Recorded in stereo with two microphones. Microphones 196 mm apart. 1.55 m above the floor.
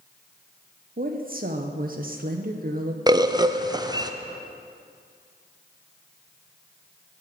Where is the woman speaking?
50° right (ahead or behind), 0.8 m.